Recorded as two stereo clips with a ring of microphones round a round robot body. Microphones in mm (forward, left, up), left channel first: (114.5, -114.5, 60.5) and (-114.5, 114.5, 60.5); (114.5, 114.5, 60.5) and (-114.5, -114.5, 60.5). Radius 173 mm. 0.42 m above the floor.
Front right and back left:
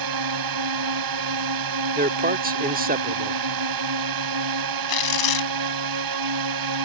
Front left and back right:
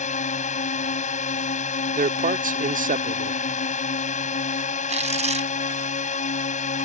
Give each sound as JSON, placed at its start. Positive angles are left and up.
{"t": 0.0, "sound": "a drone", "azimuth_deg": 115}
{"t": 1.9, "sound": "a man speaking", "azimuth_deg": 180}
{"t": 4.9, "sound": "tearing paper", "azimuth_deg": -65}